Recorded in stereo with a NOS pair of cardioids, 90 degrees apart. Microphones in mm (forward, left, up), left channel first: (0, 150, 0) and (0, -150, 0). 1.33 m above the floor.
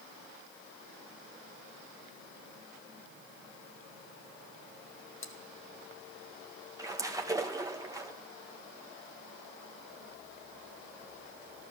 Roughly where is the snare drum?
No snare drum in this recording.